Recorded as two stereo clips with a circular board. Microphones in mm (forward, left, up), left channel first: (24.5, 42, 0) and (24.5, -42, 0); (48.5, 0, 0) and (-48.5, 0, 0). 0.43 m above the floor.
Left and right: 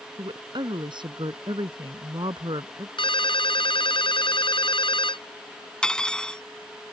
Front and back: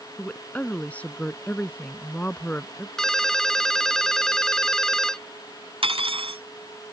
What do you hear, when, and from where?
0.2 s a woman speaking: 75° right
3.0 s a ringtone: 85° left
5.8 s cutlery clinking: 170° left